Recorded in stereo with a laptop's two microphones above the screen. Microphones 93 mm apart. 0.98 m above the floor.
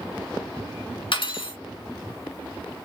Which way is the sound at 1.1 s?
65° left (ahead or behind).